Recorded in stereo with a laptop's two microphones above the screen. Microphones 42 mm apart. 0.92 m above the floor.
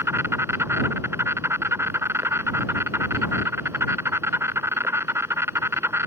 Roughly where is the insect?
Right.